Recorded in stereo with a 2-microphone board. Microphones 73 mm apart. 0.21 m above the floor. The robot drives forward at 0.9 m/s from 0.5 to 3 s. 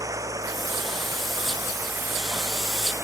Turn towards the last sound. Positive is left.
turn(degrees=-35)  # may be behind; listen again after turning